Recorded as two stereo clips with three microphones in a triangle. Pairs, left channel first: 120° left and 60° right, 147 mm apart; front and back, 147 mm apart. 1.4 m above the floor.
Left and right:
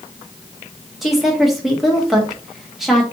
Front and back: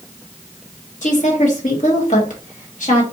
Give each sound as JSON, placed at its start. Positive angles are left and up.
{"t": 1.0, "sound": "a woman speaking", "azimuth_deg": 30, "distance_m": 1.2}